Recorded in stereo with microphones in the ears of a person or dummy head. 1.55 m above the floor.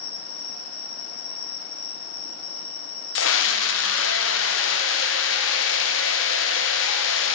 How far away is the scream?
About 0.9 m.